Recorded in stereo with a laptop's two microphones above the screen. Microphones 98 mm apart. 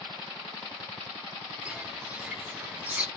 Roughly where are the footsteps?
Centre.